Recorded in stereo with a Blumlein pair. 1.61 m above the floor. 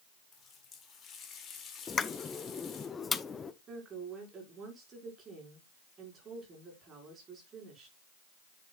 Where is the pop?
15° left, 0.6 m.